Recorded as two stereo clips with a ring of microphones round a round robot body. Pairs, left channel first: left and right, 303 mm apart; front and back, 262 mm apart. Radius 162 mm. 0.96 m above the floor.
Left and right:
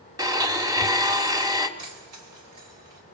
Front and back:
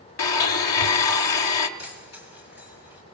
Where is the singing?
No singing in this recording.